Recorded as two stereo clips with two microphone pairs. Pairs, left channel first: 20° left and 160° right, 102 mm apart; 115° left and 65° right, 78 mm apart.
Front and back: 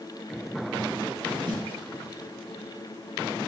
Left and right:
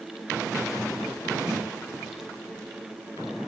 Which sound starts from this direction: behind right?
A snare drum, at 1.5 s.